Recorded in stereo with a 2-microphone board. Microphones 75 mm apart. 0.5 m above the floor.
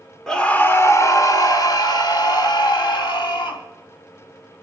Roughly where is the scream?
Centre.